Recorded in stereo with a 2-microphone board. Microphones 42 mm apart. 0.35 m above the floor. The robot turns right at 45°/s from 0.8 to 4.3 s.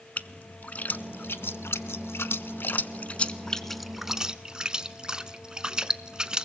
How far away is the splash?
About 0.6 m.